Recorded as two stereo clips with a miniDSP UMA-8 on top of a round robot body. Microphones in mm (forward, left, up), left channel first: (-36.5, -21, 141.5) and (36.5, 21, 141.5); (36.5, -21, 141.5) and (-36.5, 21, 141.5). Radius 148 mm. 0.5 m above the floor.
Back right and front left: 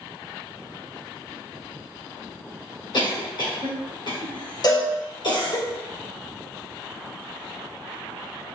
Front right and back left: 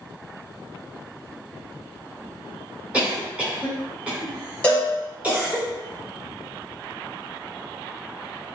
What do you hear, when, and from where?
2.9 s a cough: 135° right, 2.5 m
4.6 s a cowbell: 105° right, 0.5 m